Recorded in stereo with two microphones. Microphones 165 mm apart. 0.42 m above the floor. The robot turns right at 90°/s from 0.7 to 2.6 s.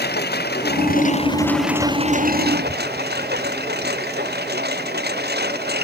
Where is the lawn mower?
85° left; by 5.8 s 85° right.